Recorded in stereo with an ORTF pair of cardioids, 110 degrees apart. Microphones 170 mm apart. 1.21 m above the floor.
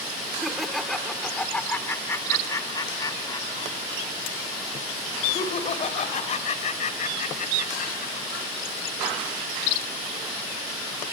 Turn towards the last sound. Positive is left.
turn(degrees=50)